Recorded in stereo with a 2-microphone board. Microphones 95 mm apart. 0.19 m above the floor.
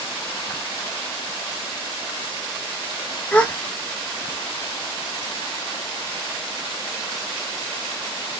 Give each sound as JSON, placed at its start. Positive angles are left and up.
{"t": 3.3, "sound": "a gasp", "side_deg": 10, "distance_m": 0.9}